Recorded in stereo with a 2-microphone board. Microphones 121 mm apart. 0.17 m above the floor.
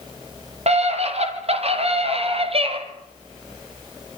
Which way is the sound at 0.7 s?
65° right (ahead or behind).